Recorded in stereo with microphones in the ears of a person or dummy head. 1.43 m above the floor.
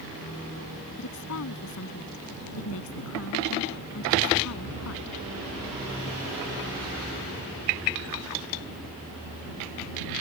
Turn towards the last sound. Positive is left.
turn(degrees=65)  # may be behind; listen again after turning